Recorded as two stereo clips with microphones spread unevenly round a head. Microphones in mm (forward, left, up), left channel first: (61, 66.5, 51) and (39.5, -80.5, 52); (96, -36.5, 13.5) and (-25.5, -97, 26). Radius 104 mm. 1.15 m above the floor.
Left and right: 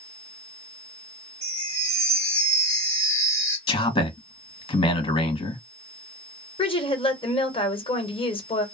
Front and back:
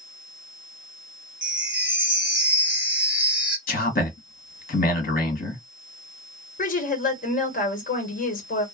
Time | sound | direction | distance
1.4 | a chime | 90° right | 1.1 m
3.7 | a man speaking | 30° left | 1.5 m
6.6 | a woman speaking | 30° left | 1.3 m